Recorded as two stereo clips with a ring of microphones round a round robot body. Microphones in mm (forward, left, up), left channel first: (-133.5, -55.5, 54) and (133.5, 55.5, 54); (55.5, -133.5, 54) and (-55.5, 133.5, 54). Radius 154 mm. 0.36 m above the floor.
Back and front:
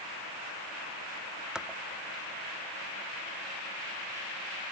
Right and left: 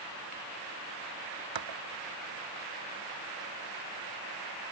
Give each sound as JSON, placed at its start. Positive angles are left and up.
{"t": 1.6, "sound": "dishes clattering", "azimuth_deg": 110}